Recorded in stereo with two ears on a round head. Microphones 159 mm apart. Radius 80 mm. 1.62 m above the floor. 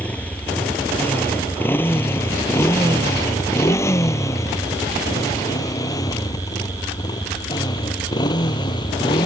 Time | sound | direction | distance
0.0 | a motorcycle | 10° left (ahead or behind) | ?